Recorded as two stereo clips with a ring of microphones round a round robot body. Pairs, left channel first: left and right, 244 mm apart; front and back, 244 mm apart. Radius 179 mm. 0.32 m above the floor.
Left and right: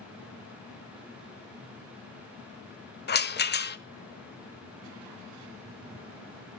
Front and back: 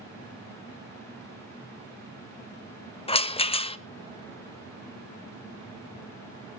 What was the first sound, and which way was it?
A rattle, 60° left.